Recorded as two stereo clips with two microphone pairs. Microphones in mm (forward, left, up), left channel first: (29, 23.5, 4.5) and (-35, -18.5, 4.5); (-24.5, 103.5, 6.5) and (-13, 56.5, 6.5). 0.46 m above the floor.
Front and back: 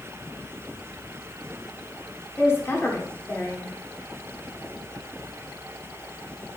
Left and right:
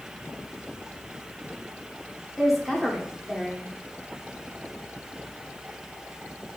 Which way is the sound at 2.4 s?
25° left.